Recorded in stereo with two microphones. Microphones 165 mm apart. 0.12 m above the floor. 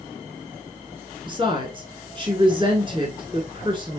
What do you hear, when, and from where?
1.3 s a woman speaking: 30° right (ahead or behind), 1.2 m